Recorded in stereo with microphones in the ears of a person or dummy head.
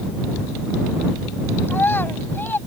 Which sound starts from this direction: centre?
A child speaking, at 1.7 s.